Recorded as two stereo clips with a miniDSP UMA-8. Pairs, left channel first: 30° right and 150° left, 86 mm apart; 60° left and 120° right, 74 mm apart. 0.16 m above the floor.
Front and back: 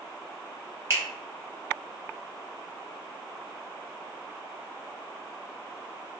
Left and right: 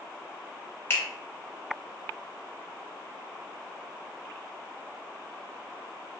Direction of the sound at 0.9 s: 110° left.